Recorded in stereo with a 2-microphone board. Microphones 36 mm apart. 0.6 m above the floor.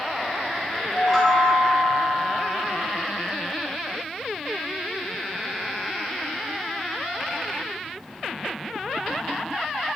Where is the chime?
Centre (ahead or behind), 0.8 m.